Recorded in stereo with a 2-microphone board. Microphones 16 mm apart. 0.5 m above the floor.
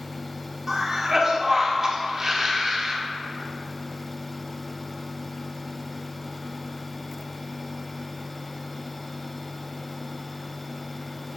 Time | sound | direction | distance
0.7 | a cough | 30° right (ahead or behind) | 1.4 m